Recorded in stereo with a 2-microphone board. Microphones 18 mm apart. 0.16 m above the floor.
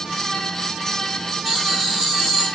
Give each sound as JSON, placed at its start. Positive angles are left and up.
{"t": 1.4, "sound": "laughter", "side_deg": 5, "distance_m": 1.5}